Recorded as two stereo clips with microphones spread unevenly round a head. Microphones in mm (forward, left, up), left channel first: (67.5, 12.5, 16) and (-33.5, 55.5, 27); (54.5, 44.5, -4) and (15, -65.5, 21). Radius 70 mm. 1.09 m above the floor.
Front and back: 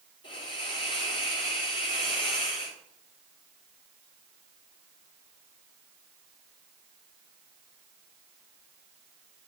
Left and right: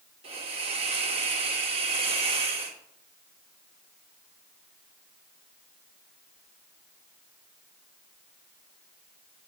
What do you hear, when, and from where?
0.2 s a hiss: 65° right, 2.5 m